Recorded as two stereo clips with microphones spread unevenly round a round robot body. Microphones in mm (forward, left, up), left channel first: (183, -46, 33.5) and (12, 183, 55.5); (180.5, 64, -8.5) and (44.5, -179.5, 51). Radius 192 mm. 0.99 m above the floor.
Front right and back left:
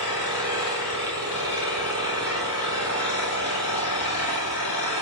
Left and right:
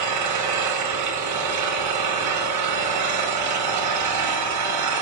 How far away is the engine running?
About 6.5 m.